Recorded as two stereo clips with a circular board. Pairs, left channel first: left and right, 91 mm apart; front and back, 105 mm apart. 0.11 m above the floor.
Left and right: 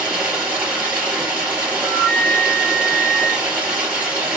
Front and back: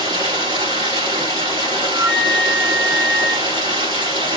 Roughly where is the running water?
Behind.